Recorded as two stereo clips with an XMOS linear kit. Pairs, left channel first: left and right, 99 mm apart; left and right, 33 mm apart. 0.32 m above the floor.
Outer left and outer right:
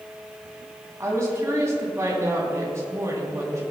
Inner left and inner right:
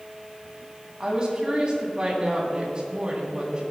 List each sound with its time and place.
1.0 s a woman speaking: 30° right (ahead or behind), 2.5 m